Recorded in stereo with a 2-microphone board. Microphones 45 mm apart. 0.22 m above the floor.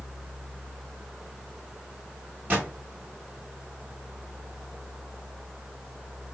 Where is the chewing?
I don't hear chewing.